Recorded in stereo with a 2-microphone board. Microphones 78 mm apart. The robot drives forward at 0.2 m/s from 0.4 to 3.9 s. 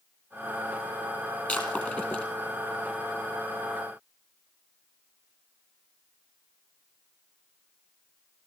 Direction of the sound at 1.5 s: 20° left (ahead or behind).